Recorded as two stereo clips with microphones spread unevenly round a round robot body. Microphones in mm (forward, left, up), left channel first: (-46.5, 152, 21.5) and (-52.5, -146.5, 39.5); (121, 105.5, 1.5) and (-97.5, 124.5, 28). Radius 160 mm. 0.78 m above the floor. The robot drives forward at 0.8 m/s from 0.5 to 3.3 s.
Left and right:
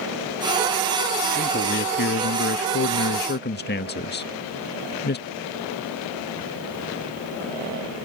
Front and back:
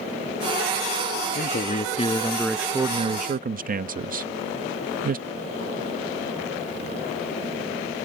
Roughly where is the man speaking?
Ahead left.